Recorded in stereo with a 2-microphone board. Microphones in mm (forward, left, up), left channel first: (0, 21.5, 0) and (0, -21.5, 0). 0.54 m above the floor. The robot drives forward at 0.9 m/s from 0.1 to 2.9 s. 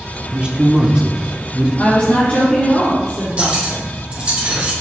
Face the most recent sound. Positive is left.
turn(degrees=-30)  # may be behind; listen again after turning